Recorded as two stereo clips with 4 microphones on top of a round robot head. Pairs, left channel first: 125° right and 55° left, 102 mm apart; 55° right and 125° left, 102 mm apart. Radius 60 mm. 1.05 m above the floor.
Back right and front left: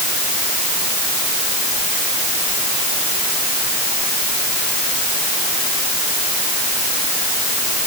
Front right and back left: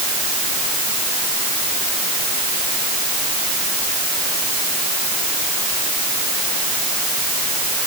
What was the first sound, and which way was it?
Only background noise.